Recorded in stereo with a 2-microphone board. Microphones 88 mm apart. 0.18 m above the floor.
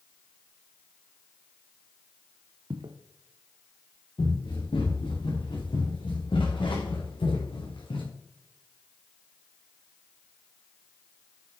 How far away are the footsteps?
About 1.3 m.